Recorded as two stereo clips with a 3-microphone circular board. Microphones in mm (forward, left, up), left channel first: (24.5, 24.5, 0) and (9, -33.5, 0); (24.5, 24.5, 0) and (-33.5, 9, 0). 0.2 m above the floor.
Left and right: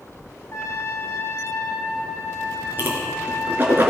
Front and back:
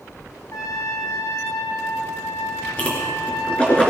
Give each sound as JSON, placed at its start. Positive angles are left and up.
{"t": 0.5, "sound": "a trumpet", "azimuth_deg": 40, "distance_m": 2.0}
{"t": 2.8, "sound": "a whoosh", "azimuth_deg": -50, "distance_m": 3.5}